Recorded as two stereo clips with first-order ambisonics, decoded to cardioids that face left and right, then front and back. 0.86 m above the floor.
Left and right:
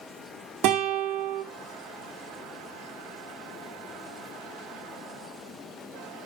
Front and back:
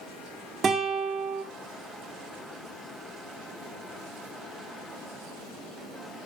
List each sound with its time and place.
0.6 s a guitar: 115° right, 2 m